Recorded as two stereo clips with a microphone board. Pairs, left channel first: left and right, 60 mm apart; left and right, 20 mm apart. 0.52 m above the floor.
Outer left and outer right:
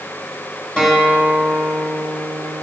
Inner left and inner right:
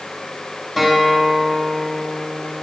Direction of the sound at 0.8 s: 15° left (ahead or behind).